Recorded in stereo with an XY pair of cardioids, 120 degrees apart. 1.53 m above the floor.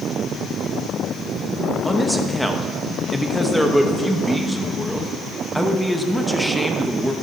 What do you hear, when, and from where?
1.9 s a man speaking: straight ahead, 1.2 m